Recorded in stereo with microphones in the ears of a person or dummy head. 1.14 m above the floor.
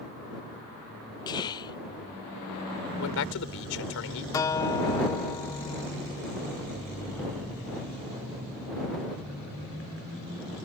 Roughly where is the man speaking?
Left.